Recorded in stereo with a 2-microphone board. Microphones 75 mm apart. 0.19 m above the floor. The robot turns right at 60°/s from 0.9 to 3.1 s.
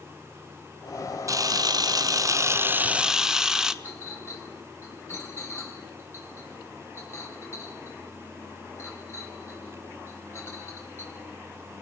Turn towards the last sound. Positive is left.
turn(degrees=35)  # may be behind; listen again after turning